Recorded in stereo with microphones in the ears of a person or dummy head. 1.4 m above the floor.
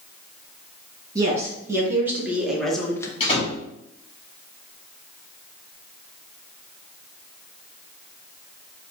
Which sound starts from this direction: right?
A woman speaking, at 1.1 s.